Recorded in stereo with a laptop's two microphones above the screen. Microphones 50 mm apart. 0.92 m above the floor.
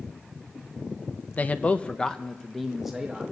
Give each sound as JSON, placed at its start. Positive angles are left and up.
{"t": 1.4, "sound": "a man speaking", "side_deg": 35, "distance_m": 0.7}